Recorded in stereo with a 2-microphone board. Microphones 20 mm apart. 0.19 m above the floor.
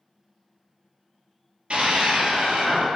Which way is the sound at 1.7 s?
60° right (ahead or behind).